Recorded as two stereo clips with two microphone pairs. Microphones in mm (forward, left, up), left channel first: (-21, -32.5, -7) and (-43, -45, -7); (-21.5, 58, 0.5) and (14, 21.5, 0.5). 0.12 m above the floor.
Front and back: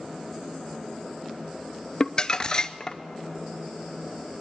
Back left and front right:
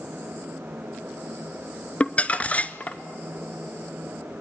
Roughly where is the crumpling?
Left.